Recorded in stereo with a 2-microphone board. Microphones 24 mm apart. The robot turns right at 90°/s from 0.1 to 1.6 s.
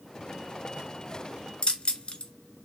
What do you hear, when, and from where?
1.6 s keys jangling: 40° left (ahead or behind), 0.9 m